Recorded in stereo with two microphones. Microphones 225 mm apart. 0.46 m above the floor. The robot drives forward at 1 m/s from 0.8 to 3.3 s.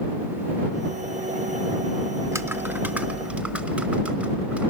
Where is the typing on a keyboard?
15° right (ahead or behind), 0.6 m; by 4.7 s 5° right (ahead or behind), 1.4 m.